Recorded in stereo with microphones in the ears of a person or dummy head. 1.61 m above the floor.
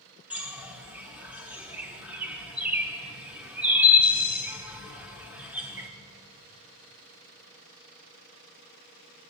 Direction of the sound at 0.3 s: 5° right (ahead or behind).